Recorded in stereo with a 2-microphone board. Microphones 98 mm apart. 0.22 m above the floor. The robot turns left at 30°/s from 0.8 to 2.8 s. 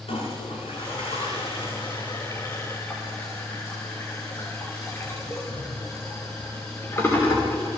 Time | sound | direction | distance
0.1 | a toilet flushing | 85° left | 6.5 m